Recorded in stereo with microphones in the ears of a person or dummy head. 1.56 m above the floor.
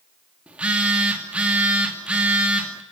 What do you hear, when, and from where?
0.5 s a phone buzzing: 5° right (ahead or behind), 2.5 m